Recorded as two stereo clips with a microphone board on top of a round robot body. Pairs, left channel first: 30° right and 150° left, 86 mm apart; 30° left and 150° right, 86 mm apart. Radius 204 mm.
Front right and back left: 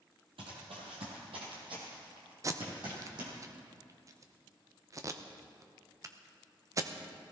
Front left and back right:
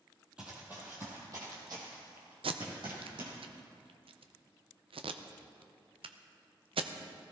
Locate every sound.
0.4 s running footsteps: 130° left, 1.8 m; by 3.3 s 175° right, 3.5 m
2.4 s tape being pulled: 155° right, 0.7 m